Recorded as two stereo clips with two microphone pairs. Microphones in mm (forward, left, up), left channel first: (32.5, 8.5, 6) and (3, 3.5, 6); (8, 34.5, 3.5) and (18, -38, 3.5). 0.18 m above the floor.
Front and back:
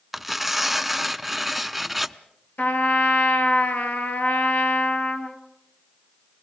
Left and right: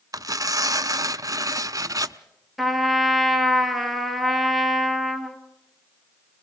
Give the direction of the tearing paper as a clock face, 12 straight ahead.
3 o'clock.